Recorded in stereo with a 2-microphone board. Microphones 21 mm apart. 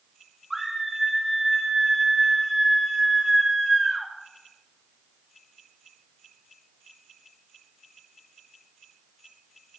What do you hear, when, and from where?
0.5 s a scream: 10° right (ahead or behind), 3 m